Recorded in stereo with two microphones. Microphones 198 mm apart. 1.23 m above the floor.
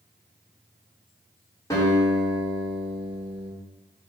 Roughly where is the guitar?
Centre.